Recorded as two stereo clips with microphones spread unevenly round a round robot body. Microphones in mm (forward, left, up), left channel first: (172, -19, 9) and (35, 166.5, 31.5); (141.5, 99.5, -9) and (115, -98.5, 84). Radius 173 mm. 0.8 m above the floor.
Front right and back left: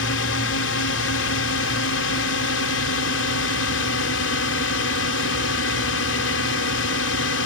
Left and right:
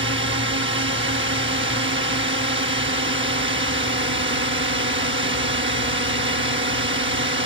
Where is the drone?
65° right.